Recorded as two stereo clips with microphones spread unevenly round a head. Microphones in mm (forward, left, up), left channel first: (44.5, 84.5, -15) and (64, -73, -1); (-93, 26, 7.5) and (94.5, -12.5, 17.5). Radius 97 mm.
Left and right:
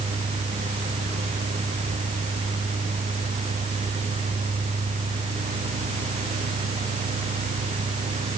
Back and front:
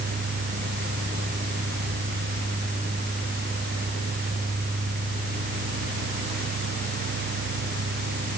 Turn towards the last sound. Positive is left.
No sound to turn to.